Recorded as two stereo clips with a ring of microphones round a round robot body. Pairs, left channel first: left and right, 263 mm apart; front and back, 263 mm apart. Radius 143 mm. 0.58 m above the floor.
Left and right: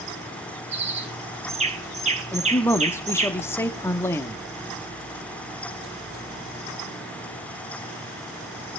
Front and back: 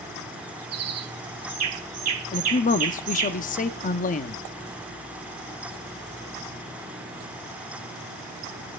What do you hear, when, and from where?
0.7 s a bird: 155° right, 1.7 m
2.3 s a man speaking: 20° left, 0.7 m